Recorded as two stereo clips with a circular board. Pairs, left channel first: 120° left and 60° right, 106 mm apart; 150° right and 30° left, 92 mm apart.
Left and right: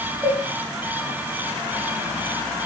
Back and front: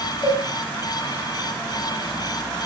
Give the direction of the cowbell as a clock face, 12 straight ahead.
4 o'clock.